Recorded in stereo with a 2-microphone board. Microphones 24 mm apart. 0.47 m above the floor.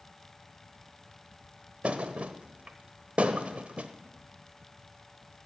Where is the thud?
55° right (ahead or behind), 0.7 m.